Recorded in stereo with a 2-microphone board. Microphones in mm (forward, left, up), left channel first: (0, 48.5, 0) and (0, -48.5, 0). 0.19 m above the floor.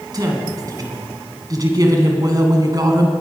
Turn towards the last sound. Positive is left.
turn(degrees=-40)  # may be behind; listen again after turning